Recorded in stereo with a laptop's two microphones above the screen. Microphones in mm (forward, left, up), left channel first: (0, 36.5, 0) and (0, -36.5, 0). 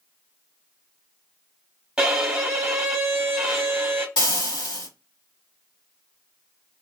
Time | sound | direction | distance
2.0 | a violin | 10° right (ahead or behind) | 1.1 m
4.2 | frying | 75° left (ahead or behind) | 1.8 m